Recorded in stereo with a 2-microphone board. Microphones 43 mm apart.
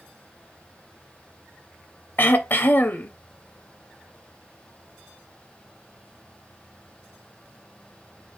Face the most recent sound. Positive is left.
turn(degrees=50)  # may be behind; listen again after turning